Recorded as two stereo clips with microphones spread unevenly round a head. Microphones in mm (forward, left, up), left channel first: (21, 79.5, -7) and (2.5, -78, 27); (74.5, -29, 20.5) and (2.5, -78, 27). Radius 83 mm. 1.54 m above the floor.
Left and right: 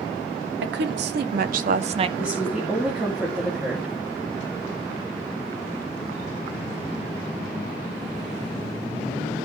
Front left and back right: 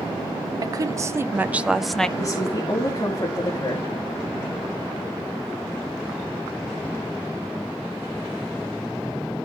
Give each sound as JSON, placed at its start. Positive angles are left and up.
{"t": 0.6, "sound": "a woman speaking", "azimuth_deg": -100, "distance_m": 1.1}
{"t": 2.2, "sound": "a woman speaking", "azimuth_deg": -15, "distance_m": 2.5}